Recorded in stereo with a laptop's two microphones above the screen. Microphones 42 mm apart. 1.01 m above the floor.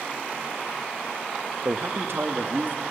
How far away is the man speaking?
About 1.0 m.